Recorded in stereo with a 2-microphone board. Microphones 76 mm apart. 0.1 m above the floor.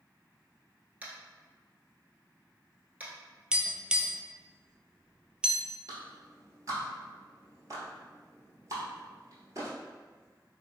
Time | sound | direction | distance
1.0 | tapping | 20° right (ahead or behind) | 1.0 m
3.5 | tapping | 10° right (ahead or behind) | 0.5 m
5.9 | a clap | 45° right (ahead or behind) | 1.3 m